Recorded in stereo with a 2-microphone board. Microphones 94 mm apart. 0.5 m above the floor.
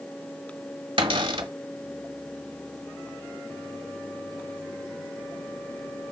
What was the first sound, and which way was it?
A cupboard door, 70° right (ahead or behind).